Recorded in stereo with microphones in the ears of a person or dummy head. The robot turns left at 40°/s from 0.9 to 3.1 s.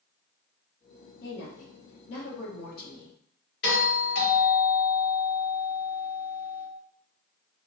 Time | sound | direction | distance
1.2 | a woman speaking | 115° left | 0.8 m
3.6 | a doorbell | 55° left (ahead or behind) | 1.7 m